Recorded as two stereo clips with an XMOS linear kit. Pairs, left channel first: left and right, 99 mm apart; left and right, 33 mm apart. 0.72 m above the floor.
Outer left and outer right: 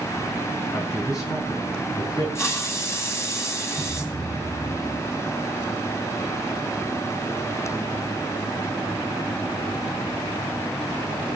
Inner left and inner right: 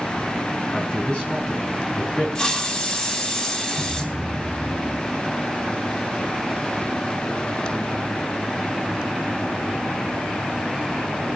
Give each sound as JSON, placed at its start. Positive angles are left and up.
{"t": 0.7, "sound": "a man speaking", "side_deg": 30, "distance_m": 4.5}
{"t": 2.4, "sound": "a hiss", "side_deg": 30, "distance_m": 2.5}
{"t": 3.8, "sound": "a thud", "side_deg": 10, "distance_m": 3.5}